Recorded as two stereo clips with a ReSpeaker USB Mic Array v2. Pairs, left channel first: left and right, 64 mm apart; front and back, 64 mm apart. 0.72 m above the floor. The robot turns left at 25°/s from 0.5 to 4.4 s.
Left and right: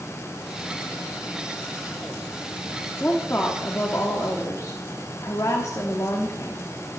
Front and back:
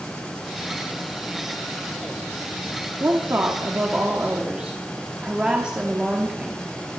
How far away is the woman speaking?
About 1.3 m.